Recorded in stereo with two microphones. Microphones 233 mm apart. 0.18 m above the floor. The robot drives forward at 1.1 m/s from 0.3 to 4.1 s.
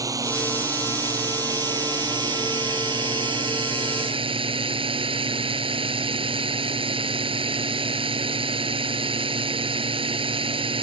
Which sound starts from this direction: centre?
A drone, at 0.0 s.